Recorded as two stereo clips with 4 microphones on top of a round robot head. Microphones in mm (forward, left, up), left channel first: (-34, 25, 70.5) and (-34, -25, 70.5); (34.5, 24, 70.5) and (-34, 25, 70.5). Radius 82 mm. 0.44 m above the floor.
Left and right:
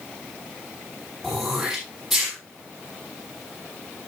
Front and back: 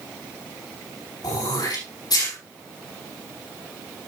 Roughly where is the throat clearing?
Ahead.